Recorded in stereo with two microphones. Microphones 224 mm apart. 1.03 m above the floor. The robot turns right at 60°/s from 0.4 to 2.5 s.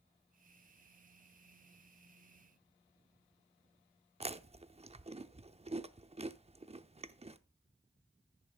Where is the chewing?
25° right (ahead or behind), 0.6 m.